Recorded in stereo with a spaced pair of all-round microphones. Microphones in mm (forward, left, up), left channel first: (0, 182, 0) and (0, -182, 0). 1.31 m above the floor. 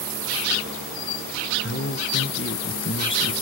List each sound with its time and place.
1.6 s a man speaking: 30° left (ahead or behind), 1.2 m